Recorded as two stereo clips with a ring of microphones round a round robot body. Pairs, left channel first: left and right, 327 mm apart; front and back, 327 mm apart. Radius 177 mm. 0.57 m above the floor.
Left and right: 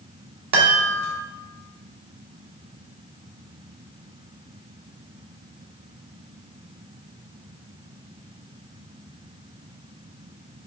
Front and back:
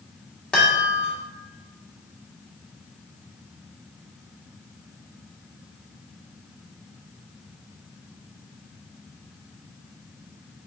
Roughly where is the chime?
Right.